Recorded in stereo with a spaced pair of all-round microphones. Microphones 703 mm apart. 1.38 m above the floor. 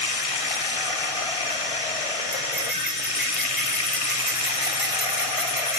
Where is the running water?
50° left (ahead or behind), 1.0 m.